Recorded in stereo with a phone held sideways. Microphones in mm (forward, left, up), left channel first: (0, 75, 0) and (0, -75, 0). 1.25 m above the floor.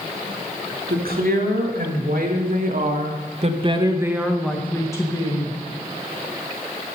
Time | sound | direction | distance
0.9 | a woman speaking | 90° right | 2.5 m